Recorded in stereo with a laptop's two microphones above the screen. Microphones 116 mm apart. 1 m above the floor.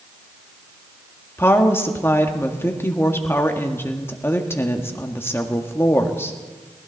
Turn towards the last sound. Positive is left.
turn(degrees=20)  # may be behind; listen again after turning